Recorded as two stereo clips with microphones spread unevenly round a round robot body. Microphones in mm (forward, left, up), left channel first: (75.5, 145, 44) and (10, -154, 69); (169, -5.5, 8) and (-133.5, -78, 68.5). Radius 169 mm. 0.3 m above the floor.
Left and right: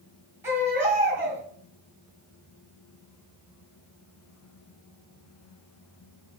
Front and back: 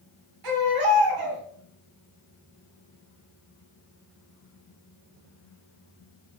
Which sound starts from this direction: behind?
A baby crying, at 0.4 s.